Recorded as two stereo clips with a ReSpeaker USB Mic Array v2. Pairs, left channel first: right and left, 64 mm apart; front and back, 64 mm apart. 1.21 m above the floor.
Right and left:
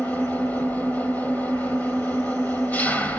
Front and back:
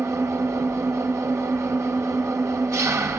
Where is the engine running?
150° right, 1.9 m.